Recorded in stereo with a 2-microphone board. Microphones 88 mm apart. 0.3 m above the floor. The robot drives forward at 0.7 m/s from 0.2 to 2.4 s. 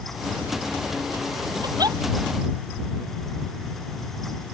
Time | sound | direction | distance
1.6 | a giggle | 50° right (ahead or behind) | ?